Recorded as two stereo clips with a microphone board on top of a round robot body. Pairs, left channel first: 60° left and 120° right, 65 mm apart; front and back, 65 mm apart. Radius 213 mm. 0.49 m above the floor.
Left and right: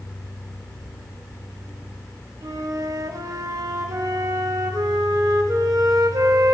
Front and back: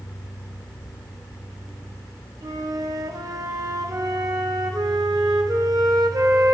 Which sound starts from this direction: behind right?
A flute, at 2.4 s.